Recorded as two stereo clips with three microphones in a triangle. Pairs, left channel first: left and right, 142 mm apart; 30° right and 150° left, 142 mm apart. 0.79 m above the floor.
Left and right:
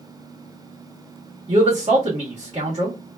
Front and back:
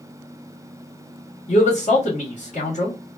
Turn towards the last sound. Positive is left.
turn(degrees=-55)